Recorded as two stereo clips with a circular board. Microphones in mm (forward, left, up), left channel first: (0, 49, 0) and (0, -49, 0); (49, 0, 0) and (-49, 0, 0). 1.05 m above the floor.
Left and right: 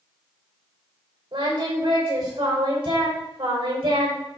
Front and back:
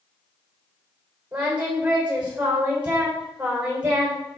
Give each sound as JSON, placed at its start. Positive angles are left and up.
{"t": 1.3, "sound": "singing", "azimuth_deg": -100, "distance_m": 4.0}